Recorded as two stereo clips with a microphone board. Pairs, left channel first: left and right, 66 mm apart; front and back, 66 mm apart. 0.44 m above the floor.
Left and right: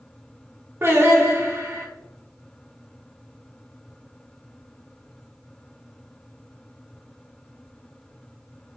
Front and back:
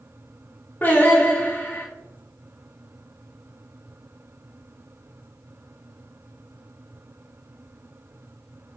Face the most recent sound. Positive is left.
turn(degrees=-55)